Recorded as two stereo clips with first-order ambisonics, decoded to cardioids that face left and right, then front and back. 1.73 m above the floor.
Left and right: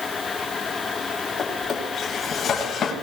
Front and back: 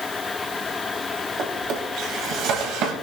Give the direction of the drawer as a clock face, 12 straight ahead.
7 o'clock.